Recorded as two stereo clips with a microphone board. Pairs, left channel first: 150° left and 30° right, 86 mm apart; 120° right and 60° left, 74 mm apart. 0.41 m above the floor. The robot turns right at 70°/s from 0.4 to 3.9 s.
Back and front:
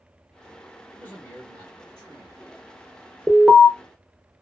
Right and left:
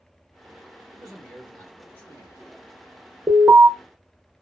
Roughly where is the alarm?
Ahead left.